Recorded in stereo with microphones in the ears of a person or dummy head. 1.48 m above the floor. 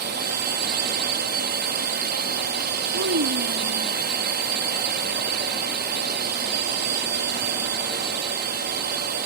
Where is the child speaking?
65° right (ahead or behind).